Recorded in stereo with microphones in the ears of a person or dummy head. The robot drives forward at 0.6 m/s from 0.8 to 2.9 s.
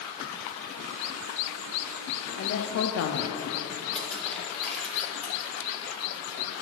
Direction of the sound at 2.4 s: 55° left (ahead or behind).